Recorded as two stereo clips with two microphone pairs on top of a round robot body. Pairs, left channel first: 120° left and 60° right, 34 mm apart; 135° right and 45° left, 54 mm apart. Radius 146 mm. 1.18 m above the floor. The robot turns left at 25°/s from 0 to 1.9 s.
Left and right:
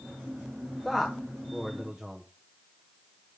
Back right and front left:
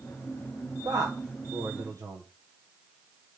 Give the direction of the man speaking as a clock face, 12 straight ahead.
11 o'clock.